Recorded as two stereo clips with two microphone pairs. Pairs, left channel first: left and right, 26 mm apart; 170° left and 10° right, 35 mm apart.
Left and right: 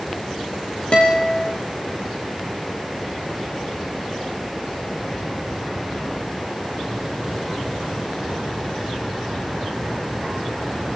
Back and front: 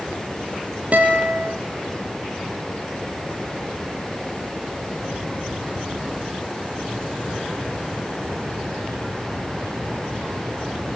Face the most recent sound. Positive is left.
turn(degrees=40)